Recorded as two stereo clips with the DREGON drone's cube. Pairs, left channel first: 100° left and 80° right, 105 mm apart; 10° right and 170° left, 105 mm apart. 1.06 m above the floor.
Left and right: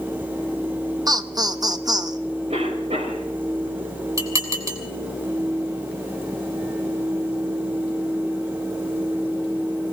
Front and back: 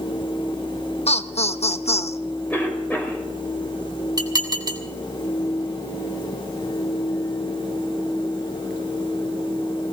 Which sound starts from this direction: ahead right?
Laughter, at 1.1 s.